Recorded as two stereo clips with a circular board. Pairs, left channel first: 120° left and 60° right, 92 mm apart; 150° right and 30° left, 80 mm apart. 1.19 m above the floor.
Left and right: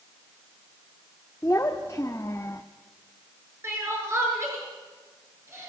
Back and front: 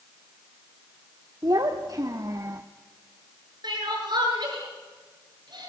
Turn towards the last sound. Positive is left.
turn(degrees=0)